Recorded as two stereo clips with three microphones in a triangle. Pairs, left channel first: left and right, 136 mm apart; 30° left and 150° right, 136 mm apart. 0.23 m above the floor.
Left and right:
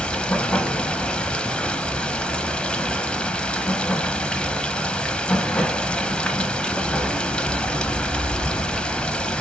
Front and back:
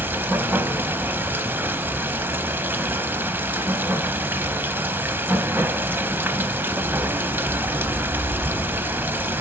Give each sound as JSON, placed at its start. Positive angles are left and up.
{"t": 0.0, "sound": "running water", "azimuth_deg": 160, "distance_m": 0.7}